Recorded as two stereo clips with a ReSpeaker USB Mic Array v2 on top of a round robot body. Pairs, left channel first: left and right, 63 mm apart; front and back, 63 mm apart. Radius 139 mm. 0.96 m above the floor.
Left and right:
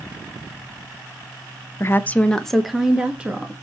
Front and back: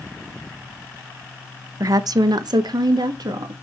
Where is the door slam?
I don't hear a door slam.